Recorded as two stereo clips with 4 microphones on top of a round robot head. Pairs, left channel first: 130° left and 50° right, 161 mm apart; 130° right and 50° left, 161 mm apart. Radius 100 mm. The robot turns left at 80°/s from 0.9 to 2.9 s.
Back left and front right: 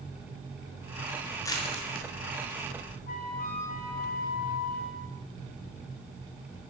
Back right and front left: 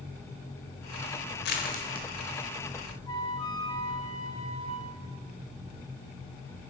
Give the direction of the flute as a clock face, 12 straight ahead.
7 o'clock.